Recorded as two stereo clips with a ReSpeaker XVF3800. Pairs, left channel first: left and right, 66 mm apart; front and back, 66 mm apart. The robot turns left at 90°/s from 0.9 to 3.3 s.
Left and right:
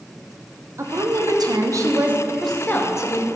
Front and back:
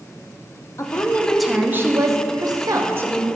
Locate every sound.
0.8 s a woman speaking: 45° right, 0.7 m; by 3.3 s 100° left, 0.7 m